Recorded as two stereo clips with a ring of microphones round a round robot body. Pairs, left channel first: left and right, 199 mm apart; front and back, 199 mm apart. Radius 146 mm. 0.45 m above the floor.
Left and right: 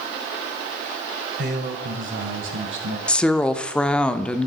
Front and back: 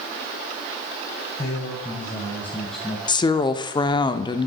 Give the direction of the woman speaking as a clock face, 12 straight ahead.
12 o'clock.